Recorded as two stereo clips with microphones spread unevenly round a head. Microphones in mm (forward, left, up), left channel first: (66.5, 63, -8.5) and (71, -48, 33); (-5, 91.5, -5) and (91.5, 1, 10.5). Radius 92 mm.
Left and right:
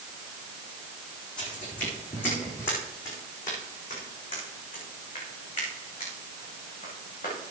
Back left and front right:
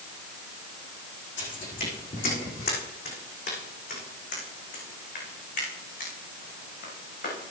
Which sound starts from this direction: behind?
Footsteps, at 1.4 s.